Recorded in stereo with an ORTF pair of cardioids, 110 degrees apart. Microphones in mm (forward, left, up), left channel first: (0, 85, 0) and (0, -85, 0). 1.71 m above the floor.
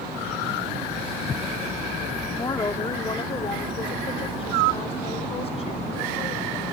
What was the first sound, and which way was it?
A woman speaking, 20° left.